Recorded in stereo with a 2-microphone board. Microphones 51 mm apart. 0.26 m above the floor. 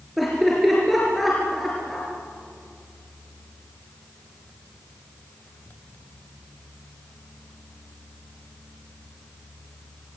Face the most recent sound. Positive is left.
turn(degrees=0)  # may be behind; listen again after turning